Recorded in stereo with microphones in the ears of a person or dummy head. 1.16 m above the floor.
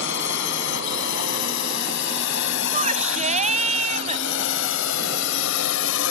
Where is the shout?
35° right (ahead or behind).